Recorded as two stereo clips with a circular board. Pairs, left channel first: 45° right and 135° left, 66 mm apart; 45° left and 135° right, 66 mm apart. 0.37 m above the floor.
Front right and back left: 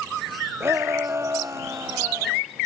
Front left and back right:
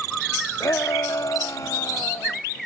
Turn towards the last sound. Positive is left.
turn(degrees=90)